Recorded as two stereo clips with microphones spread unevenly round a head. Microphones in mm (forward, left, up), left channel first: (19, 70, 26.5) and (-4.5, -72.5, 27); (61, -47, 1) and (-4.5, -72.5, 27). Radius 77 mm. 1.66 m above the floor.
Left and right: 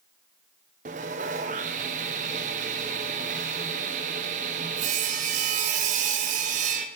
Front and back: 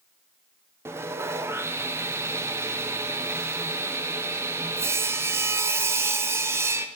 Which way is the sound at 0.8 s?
135° right.